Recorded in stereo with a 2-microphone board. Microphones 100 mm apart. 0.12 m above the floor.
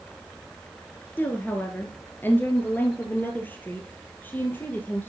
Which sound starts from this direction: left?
A woman speaking, at 1.2 s.